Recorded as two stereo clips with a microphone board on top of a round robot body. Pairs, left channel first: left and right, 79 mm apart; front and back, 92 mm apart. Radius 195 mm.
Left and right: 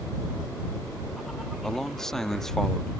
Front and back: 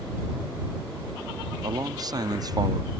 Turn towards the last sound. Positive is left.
turn(degrees=170)